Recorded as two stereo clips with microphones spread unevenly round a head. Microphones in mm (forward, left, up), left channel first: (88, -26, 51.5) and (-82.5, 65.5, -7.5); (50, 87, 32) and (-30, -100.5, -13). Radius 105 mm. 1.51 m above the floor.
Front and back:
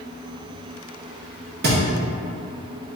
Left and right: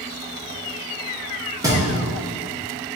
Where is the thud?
165° left, 0.8 m.